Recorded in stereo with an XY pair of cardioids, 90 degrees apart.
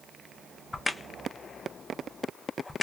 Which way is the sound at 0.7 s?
25° left.